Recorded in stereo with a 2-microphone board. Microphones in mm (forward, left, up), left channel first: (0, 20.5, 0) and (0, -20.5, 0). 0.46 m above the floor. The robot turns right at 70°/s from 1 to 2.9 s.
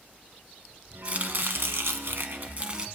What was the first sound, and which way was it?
Chopping, 145° right.